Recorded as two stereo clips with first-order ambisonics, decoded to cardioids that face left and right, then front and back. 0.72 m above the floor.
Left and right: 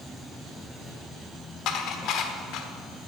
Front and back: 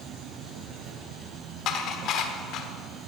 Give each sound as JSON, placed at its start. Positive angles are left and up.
{"t": 0.0, "sound": "an insect", "azimuth_deg": 170, "distance_m": 0.8}
{"t": 1.7, "sound": "dishes clattering", "azimuth_deg": 50, "distance_m": 1.3}